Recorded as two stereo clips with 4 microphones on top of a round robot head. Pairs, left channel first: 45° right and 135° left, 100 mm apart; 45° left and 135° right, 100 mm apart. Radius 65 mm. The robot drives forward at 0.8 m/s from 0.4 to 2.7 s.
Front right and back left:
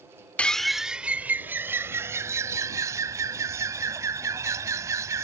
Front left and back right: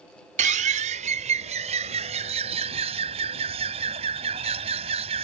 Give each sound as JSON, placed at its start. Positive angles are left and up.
{"t": 0.4, "sound": "a bird", "azimuth_deg": -130}